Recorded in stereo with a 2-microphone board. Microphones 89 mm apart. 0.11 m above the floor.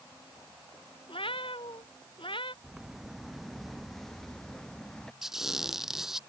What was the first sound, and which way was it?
A cat meowing, 80° left.